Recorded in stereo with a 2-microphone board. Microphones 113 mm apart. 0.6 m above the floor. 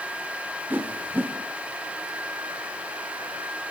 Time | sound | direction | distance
0.7 | a whoosh | 15° right (ahead or behind) | 1.6 m